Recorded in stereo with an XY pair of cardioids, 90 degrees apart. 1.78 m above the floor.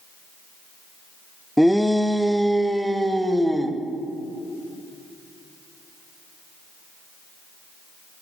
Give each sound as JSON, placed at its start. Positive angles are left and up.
{"t": 1.6, "sound": "a shout", "azimuth_deg": 0, "distance_m": 0.6}